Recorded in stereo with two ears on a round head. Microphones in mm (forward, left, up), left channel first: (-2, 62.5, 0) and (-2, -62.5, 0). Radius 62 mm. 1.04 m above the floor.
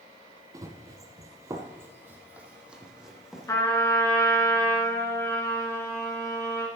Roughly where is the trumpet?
Centre.